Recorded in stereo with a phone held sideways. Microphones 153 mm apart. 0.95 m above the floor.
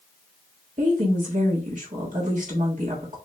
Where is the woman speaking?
55° right (ahead or behind), 1.5 m.